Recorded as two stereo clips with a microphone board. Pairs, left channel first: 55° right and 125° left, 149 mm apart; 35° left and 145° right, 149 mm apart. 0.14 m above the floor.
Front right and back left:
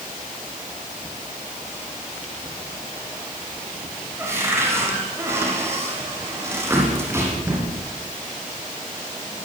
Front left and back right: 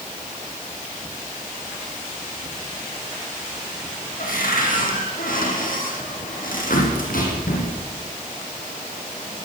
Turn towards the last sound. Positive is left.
turn(degrees=50)